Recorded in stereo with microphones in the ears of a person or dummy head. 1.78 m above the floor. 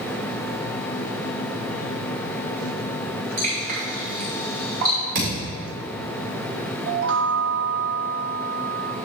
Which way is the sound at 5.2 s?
70° right (ahead or behind).